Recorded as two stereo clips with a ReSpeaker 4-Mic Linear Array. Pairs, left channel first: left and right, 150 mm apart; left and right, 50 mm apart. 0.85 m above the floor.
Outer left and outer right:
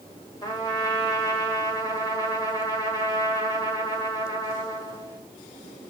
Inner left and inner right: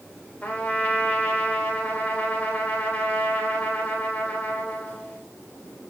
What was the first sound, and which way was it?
A trumpet, 25° left (ahead or behind).